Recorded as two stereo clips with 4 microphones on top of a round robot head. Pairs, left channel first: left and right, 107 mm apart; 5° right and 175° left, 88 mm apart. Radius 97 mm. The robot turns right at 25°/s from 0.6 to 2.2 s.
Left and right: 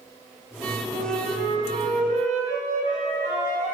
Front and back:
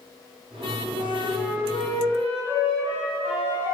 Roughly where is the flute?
Right.